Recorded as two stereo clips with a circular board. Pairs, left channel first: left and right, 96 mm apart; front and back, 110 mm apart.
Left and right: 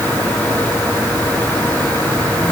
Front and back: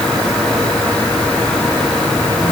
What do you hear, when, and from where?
Only background noise.